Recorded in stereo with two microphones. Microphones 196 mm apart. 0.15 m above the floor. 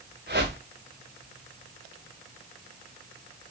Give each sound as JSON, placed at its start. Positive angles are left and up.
{"t": 0.3, "sound": "a whoosh", "side_deg": -60, "distance_m": 7.5}